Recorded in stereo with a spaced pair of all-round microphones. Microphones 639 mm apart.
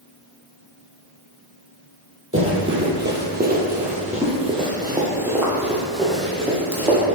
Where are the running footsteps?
20° right (ahead or behind), 1.7 m; by 7.0 s 5° left (ahead or behind), 2.5 m.